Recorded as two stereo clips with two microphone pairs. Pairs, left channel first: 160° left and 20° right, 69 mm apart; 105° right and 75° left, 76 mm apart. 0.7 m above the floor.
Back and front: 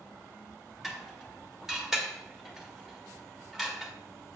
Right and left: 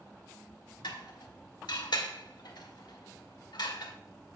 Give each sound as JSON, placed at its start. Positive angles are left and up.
{"t": 0.8, "sound": "dishes clattering", "azimuth_deg": -105, "distance_m": 1.4}